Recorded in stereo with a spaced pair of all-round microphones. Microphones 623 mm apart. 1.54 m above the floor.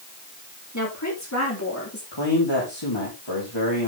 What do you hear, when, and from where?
0.7 s a woman speaking: 25° left (ahead or behind), 5 m; by 2.0 s 20° left (ahead or behind), 3.5 m
2.1 s a man speaking: 40° left (ahead or behind), 4 m